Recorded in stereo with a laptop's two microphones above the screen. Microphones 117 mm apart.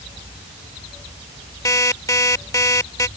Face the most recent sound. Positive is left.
turn(degrees=30)  # may be behind; listen again after turning